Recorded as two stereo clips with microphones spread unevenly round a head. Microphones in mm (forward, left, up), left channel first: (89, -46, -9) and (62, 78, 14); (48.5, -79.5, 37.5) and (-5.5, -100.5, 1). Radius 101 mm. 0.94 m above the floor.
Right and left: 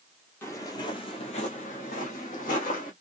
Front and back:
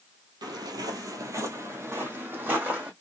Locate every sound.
0.4 s footsteps: 155° right, 1.0 m; by 2.9 s 80° right, 2.0 m